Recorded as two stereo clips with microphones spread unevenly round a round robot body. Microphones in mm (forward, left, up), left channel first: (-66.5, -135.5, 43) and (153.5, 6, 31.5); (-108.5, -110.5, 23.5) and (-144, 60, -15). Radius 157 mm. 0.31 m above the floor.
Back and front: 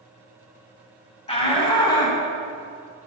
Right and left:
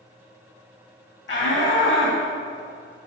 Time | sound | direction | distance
1.3 | a shout | 80° right | 3 m